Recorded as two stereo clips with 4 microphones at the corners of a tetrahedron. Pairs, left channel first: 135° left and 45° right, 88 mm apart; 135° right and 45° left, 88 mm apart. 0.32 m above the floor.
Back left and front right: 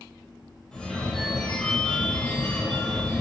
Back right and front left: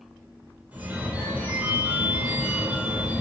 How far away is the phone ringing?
About 0.6 m.